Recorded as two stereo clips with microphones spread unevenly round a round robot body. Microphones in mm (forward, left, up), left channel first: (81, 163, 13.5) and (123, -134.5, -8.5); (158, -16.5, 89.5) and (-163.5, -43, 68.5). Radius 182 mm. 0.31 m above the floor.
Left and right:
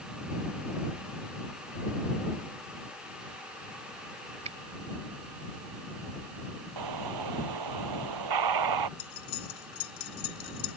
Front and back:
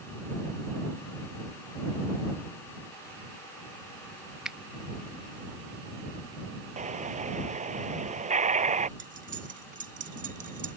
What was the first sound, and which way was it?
A finger snap, 100° right.